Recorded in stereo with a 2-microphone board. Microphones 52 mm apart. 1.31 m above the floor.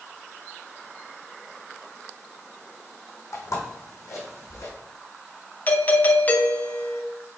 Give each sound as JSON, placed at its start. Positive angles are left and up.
{"t": 3.3, "sound": "footsteps", "side_deg": 60, "distance_m": 3.5}
{"t": 5.7, "sound": "a doorbell", "side_deg": 30, "distance_m": 0.9}